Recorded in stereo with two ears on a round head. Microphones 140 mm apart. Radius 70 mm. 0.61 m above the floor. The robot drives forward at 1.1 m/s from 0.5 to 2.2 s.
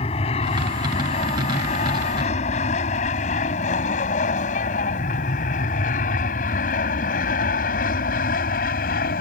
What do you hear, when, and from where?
0.0 s an aircraft: 35° left (ahead or behind); by 9.2 s 60° left (ahead or behind)